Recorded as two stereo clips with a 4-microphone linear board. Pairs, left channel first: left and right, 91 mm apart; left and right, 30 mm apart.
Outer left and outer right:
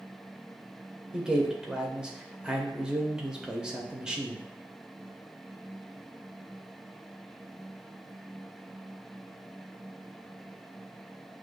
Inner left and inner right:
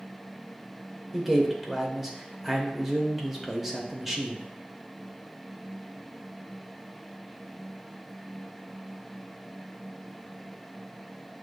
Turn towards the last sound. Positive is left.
turn(degrees=-10)  # may be behind; listen again after turning